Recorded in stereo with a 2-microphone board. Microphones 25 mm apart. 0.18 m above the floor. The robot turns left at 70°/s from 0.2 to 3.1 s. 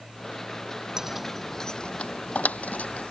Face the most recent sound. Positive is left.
turn(degrees=50)  # may be behind; listen again after turning